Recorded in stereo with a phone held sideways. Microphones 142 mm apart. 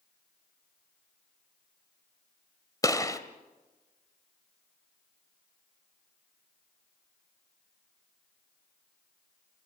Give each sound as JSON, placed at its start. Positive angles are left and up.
{"t": 2.8, "sound": "a gunshot", "side_deg": 25, "distance_m": 1.6}